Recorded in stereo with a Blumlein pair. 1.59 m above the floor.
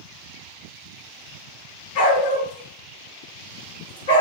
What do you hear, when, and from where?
1.9 s a dog barking: 60° left, 8 m; by 4.2 s 70° left, 5.5 m